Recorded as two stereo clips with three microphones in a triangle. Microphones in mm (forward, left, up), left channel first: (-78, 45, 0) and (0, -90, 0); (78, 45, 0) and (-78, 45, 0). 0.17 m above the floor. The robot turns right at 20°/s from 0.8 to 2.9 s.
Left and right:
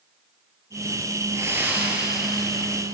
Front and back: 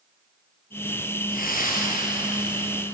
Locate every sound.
1.3 s breathing: 10° left, 4 m; by 2.8 s 40° left, 4 m